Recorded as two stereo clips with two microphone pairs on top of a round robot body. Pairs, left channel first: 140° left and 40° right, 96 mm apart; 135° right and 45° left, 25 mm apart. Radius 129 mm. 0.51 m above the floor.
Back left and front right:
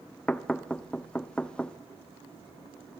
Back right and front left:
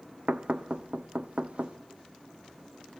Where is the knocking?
65° left, 0.8 m.